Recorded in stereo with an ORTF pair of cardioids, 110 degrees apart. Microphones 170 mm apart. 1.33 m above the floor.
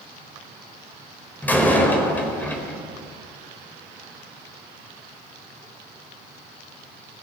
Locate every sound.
1.4 s a door slam: 10° left, 4.5 m